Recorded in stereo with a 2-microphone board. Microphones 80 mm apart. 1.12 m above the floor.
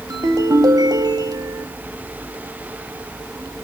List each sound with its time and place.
0.1 s a ringtone: 55° right (ahead or behind), 2 m